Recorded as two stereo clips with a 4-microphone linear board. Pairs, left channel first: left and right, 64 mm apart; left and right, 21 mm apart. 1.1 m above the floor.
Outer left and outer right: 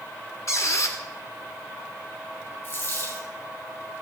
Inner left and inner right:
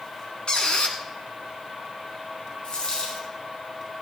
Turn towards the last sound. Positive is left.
turn(degrees=45)  # may be behind; listen again after turning